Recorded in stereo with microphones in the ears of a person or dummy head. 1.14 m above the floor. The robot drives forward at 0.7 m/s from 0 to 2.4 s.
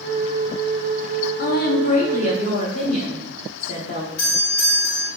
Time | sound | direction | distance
1.4 | a woman speaking | 45° left (ahead or behind) | 0.6 m
4.2 | a doorbell | 60° left (ahead or behind) | 1.9 m